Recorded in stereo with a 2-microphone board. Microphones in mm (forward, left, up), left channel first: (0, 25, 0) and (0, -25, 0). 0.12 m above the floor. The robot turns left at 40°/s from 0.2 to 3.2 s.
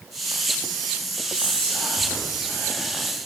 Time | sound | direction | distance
1.3 | whispering | 25° left (ahead or behind) | 1.8 m